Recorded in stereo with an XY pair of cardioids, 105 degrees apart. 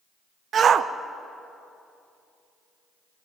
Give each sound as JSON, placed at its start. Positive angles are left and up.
{"t": 0.5, "sound": "a shout", "azimuth_deg": -50, "distance_m": 0.5}